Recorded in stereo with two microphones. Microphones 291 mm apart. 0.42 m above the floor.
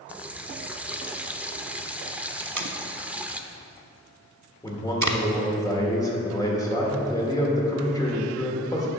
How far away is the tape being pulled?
About 0.8 m.